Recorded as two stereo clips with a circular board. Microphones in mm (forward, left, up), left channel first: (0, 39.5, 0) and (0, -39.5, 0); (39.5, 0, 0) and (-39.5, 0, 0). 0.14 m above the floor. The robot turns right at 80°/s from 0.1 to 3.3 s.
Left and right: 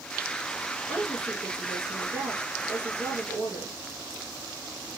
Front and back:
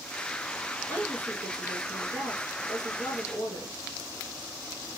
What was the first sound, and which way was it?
A woman speaking, 130° left.